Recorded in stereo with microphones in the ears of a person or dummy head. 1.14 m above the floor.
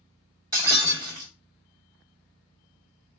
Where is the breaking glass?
20° right (ahead or behind), 3 m.